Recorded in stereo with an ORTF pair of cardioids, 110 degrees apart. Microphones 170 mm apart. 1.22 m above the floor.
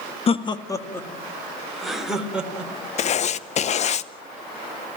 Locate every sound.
0.3 s laughter: 35° left, 1.4 m; by 2.7 s 5° right, 4 m
3.0 s writing: 45° left, 0.7 m